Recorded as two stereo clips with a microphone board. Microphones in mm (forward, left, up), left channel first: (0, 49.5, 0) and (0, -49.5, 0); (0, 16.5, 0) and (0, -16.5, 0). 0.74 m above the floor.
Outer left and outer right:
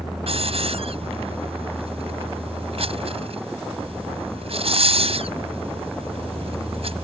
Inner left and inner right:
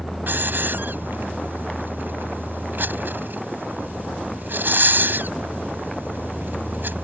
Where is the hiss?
80° right.